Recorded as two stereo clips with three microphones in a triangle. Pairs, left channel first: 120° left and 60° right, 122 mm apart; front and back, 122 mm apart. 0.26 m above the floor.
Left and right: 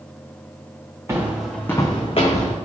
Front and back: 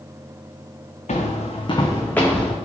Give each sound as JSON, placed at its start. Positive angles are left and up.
{"t": 1.1, "sound": "footsteps", "azimuth_deg": 10, "distance_m": 0.9}